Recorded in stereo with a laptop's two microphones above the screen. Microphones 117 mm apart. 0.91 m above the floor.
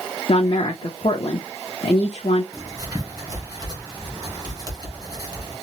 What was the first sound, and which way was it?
A woman speaking, 50° left (ahead or behind).